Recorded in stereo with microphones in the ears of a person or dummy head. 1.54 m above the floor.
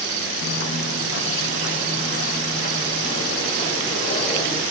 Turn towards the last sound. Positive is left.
turn(degrees=25)  # may be behind; listen again after turning